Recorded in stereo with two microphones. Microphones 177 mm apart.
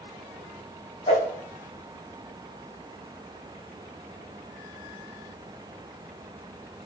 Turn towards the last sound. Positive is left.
turn(degrees=40)  # may be behind; listen again after turning